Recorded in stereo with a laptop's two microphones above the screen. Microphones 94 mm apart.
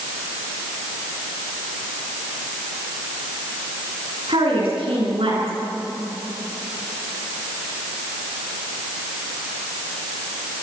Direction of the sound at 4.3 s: 80° right.